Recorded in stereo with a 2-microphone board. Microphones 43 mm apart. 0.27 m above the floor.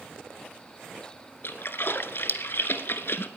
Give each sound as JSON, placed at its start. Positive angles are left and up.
{"t": 1.4, "sound": "a splash", "side_deg": 60, "distance_m": 0.9}